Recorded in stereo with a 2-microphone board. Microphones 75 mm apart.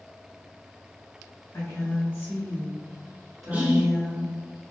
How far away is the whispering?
About 1.3 m.